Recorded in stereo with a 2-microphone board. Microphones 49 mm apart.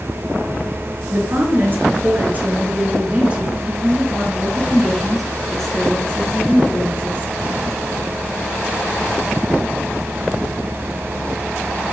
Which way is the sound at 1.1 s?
45° right (ahead or behind).